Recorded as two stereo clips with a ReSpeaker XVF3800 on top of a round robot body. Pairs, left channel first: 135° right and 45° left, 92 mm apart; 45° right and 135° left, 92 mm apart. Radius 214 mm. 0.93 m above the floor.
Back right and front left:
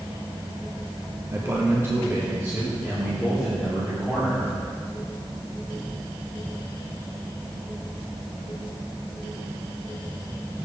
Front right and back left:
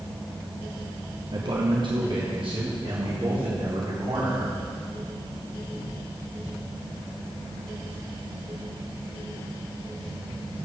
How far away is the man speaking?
About 1.2 m.